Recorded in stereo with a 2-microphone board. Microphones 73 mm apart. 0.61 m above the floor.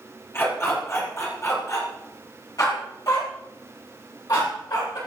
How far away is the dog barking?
About 6.5 m.